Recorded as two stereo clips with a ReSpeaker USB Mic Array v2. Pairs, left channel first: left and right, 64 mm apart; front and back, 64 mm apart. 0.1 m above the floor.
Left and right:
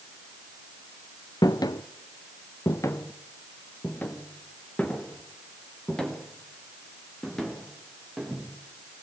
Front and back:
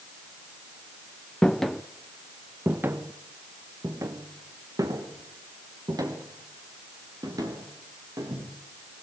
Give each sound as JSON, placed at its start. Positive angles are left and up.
{"t": 1.4, "sound": "footsteps", "azimuth_deg": 80, "distance_m": 1.2}